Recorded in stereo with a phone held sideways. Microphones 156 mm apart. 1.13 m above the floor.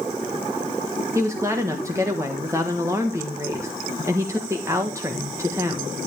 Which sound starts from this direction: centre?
A woman speaking, at 1.1 s.